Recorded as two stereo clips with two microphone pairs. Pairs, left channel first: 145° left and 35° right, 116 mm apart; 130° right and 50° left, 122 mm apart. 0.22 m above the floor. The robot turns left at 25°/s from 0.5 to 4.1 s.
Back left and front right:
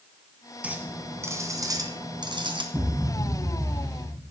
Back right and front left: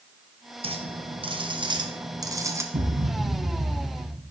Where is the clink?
40° left, 1.2 m; by 2.6 s 10° right, 1.2 m.